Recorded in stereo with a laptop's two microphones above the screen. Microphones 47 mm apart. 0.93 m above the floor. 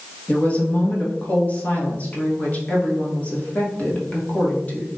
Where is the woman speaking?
30° left (ahead or behind), 1.0 m.